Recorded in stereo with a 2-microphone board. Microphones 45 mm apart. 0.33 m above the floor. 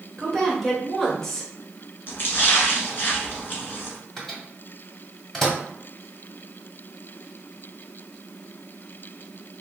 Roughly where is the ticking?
No ticking in this recording.